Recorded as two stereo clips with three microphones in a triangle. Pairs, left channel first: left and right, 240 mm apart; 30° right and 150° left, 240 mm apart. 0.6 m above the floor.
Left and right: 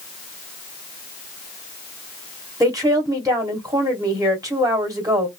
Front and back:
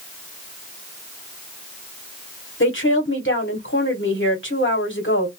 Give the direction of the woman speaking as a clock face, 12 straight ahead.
1 o'clock.